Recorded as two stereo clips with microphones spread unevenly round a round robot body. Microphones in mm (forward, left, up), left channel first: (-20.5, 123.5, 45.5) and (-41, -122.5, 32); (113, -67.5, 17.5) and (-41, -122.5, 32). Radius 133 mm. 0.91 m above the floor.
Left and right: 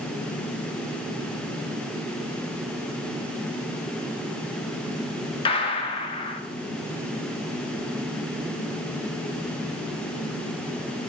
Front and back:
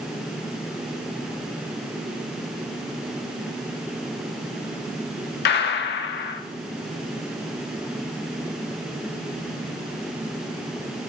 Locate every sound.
5.5 s a gunshot: 15° left, 0.5 m